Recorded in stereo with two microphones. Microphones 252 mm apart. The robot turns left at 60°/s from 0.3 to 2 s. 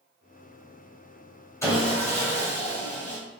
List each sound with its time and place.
1.6 s sawing: 10° left (ahead or behind), 1.5 m; by 3.2 s 30° left (ahead or behind), 1.5 m